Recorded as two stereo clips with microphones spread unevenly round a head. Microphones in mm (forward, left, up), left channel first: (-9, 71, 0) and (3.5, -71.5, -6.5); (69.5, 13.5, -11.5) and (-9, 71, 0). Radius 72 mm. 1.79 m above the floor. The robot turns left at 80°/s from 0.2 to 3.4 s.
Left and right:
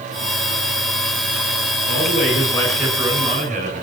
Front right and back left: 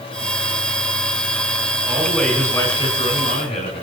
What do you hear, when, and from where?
1.9 s a man speaking: 80° left, 9 m; by 3.8 s 40° right, 9 m